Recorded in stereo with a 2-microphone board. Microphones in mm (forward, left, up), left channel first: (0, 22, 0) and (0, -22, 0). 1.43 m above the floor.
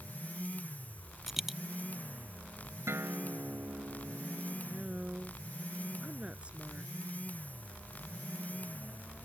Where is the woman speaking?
25° right (ahead or behind).